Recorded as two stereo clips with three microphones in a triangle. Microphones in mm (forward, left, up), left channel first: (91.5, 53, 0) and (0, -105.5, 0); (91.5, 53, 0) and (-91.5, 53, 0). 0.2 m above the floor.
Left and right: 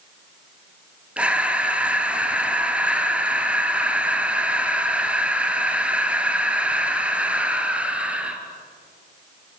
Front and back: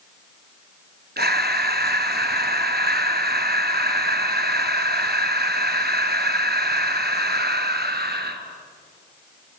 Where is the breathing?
155° left, 1.4 m.